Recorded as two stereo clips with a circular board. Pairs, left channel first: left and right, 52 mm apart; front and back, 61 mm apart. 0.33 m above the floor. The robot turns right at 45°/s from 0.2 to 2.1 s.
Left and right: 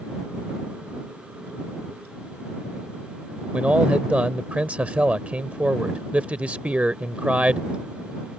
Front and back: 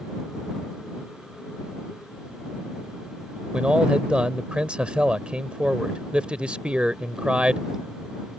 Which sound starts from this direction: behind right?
A man speaking, at 3.5 s.